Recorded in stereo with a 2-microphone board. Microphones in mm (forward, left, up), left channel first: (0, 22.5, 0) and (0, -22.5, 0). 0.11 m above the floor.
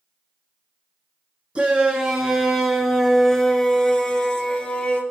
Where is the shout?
25° right (ahead or behind), 1.8 m; by 5.0 s 20° left (ahead or behind), 2.5 m.